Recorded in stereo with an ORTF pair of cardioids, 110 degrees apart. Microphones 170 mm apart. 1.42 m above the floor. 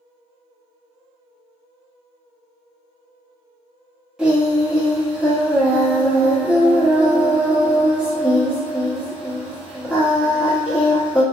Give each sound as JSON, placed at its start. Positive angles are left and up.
{"t": 4.2, "sound": "singing", "azimuth_deg": -5, "distance_m": 0.9}